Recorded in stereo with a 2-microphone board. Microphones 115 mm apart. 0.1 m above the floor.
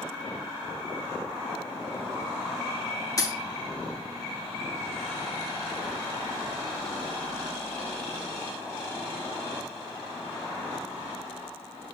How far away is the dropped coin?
About 0.6 m.